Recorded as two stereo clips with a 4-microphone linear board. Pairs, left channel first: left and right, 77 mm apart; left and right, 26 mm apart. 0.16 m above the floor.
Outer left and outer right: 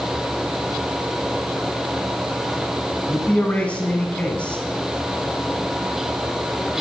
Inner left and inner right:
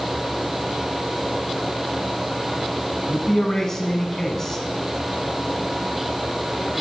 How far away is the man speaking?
About 1.1 m.